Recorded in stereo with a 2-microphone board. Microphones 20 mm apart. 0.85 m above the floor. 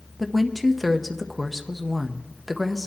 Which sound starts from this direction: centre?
A woman speaking, at 0.2 s.